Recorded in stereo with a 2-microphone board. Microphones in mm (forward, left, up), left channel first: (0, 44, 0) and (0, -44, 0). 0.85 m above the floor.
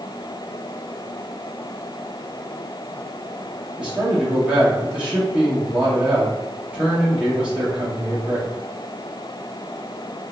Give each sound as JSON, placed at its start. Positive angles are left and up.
{"t": 3.8, "sound": "a man speaking", "side_deg": -10, "distance_m": 1.3}